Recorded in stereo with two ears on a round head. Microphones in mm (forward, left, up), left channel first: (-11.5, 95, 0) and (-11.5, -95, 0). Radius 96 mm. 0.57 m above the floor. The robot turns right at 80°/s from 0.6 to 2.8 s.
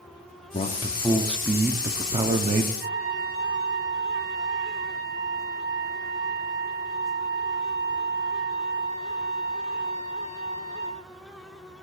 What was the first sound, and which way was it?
A man speaking, 30° left (ahead or behind).